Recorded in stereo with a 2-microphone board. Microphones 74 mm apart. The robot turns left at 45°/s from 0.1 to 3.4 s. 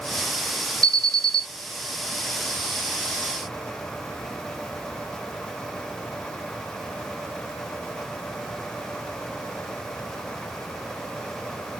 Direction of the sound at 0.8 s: 55° right (ahead or behind).